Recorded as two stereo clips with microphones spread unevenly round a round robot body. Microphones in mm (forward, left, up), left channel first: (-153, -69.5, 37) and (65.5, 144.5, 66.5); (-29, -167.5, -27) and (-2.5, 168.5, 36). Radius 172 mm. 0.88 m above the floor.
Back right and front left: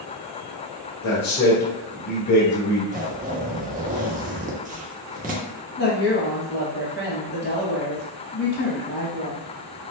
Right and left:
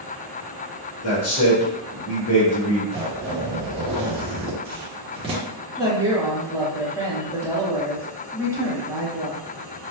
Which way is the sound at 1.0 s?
140° right.